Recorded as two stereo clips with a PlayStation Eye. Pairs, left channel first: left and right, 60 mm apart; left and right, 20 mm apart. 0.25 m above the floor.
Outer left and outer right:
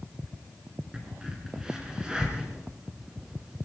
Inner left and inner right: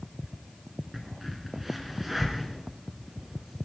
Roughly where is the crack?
Centre.